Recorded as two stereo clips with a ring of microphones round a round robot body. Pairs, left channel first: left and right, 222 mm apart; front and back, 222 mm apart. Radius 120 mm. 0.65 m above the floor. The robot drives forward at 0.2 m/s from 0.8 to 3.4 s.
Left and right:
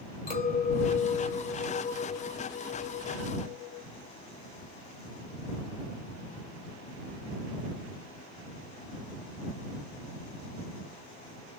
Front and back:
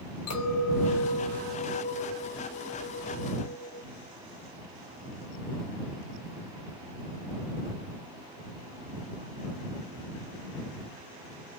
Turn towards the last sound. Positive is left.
turn(degrees=55)